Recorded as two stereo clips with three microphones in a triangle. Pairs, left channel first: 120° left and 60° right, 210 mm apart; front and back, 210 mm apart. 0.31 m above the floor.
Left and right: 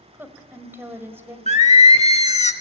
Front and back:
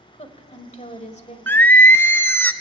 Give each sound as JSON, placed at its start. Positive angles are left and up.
{"t": 0.1, "sound": "a woman speaking", "azimuth_deg": 10, "distance_m": 1.4}
{"t": 1.5, "sound": "singing", "azimuth_deg": 80, "distance_m": 0.6}